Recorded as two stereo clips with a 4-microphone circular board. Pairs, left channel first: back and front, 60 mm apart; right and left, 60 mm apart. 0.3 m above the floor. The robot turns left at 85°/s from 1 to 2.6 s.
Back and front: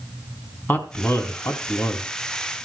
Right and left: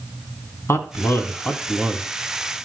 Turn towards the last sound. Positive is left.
turn(degrees=100)